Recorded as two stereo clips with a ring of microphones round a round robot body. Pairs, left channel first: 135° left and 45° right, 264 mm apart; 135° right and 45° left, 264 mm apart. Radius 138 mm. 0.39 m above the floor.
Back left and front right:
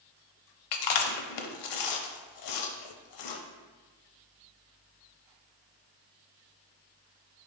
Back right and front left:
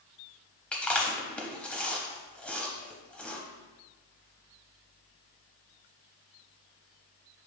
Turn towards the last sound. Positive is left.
turn(degrees=140)